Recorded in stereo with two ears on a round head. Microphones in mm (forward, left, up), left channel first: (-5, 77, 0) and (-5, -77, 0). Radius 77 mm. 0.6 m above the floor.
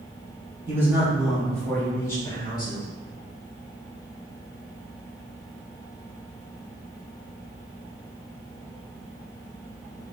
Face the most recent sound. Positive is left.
turn(degrees=25)  # may be behind; listen again after turning